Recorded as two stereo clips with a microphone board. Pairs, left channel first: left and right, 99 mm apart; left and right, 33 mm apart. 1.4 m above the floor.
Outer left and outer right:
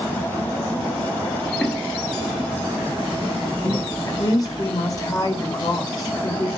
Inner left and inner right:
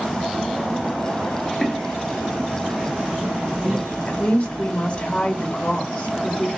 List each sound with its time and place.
1.4 s footsteps: 10° left (ahead or behind), 1.4 m; by 4.0 s 35° right (ahead or behind), 2.5 m
4.1 s a woman speaking: 35° left (ahead or behind), 1.1 m